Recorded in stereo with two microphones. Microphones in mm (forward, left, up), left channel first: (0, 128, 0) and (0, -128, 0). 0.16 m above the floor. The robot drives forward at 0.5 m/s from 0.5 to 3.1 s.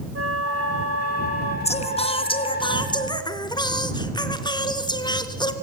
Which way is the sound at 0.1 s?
60° right (ahead or behind).